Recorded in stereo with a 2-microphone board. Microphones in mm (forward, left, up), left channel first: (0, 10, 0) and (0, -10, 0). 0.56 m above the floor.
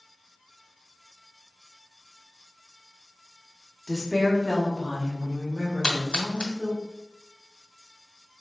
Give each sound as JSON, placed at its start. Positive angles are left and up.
{"t": 3.9, "sound": "a woman speaking", "side_deg": 20, "distance_m": 1.1}
{"t": 5.8, "sound": "a splash", "side_deg": 50, "distance_m": 1.1}